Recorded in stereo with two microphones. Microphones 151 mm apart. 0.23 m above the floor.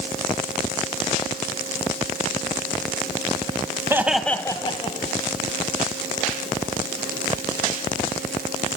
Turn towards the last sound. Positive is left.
turn(degrees=50)  # may be behind; listen again after turning